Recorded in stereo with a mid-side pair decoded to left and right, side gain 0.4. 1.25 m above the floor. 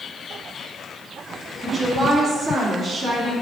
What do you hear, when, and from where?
1.6 s a woman speaking: 35° right, 2.0 m; by 3.3 s 65° right, 1.8 m